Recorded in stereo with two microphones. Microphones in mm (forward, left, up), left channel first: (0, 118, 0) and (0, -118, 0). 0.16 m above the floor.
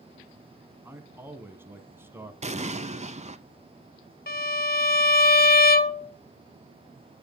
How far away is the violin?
About 0.6 m.